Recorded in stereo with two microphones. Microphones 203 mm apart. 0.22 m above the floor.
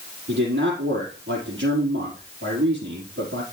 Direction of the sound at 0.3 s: 60° right (ahead or behind).